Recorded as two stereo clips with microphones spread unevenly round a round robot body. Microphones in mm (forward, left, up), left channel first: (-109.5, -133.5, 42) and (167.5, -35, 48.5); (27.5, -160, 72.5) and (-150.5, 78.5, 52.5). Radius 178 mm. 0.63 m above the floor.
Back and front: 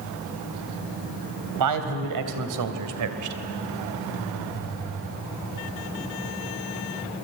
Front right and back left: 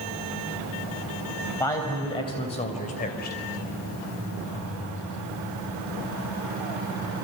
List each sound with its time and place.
1.6 s a man speaking: 30° left, 3.5 m; by 3.4 s 5° left, 2.5 m